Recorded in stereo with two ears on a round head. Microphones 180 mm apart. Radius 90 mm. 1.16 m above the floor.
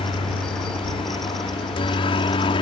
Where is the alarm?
I don't hear an alarm.